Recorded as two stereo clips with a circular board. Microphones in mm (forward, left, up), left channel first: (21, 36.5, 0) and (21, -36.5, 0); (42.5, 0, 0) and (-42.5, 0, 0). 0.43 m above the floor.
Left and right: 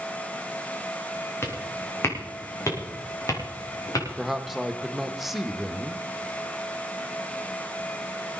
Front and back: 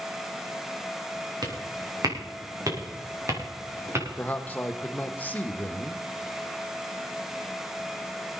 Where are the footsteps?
145° left, 3.5 m; by 4.1 s 120° left, 5 m.